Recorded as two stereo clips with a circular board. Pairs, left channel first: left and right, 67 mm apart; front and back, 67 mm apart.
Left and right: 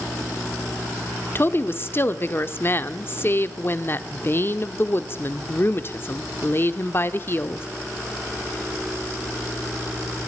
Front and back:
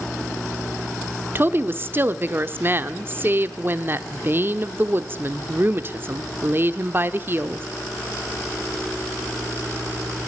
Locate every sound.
1.4 s a woman speaking: 135° left, 0.9 m